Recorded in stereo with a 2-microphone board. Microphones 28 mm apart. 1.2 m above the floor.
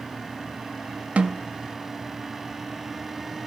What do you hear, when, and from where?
1.2 s a snare drum: 60° right (ahead or behind), 1.9 m